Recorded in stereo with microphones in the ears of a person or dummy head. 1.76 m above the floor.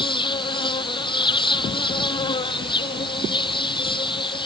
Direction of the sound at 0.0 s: 30° left (ahead or behind).